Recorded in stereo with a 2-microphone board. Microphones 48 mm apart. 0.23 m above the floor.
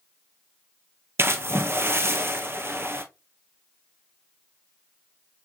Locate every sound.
1.2 s a splash: 60° right (ahead or behind), 0.8 m